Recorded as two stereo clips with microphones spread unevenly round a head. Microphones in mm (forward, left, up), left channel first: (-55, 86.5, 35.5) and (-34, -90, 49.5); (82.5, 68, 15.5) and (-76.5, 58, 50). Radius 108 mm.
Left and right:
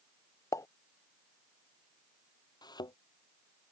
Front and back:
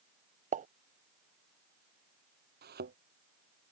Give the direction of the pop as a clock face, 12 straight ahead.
7 o'clock.